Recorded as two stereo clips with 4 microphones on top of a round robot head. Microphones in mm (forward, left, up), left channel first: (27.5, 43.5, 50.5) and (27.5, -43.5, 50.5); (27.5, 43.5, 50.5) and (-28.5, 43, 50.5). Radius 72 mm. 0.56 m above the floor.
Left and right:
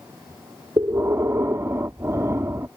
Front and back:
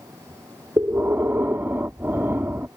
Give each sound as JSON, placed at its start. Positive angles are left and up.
{"t": 0.8, "sound": "breathing", "azimuth_deg": -140}